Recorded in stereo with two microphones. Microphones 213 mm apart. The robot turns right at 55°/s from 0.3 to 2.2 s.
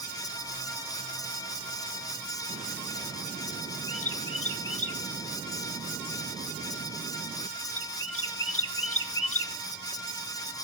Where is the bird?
85° left, 1.0 m.